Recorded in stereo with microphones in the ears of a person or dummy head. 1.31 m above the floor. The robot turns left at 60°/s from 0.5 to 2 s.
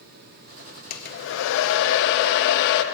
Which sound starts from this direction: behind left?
A hair dryer, at 0.9 s.